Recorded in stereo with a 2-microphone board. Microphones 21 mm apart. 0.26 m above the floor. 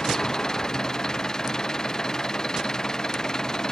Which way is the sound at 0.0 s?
25° left (ahead or behind).